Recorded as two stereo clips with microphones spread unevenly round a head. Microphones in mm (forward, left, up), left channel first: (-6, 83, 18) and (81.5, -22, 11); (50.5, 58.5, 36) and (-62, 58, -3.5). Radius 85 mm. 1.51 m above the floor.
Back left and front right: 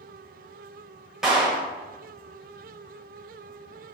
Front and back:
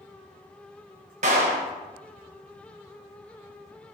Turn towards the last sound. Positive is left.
turn(degrees=-140)